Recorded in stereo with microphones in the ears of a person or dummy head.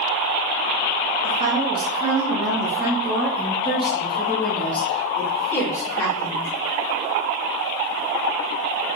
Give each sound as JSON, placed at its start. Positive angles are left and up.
{"t": 1.2, "sound": "a woman speaking", "side_deg": -40, "distance_m": 2.5}